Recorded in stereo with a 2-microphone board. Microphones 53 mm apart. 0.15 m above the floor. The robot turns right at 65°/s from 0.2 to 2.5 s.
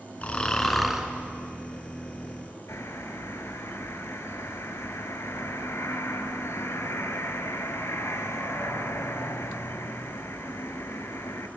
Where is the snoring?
140° left, 2 m; by 1.1 s 160° right, 2 m.